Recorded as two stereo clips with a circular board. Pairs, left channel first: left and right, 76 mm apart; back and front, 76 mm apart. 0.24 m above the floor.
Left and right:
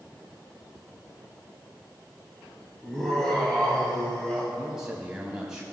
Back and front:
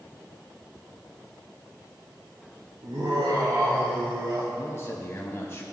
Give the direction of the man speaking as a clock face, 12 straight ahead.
5 o'clock.